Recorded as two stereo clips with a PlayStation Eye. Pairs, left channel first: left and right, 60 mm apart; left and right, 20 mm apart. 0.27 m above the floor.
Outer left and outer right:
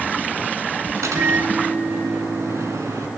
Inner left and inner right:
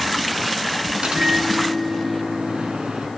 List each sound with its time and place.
1.0 s a microwave: 60° right (ahead or behind), 2.5 m